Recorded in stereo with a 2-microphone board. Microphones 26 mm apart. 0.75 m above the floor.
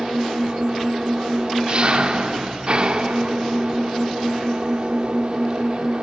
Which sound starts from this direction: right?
An engine running, at 0.0 s.